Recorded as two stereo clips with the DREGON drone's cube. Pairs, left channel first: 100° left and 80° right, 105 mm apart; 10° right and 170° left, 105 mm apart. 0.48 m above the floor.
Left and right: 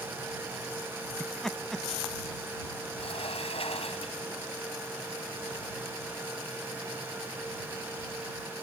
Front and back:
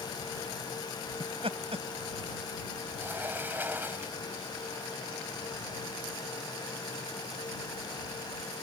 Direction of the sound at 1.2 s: 175° right.